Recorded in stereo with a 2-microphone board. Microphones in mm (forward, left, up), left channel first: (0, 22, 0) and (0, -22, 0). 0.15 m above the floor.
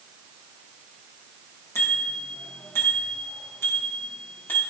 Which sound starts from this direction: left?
A bicycle bell, at 1.8 s.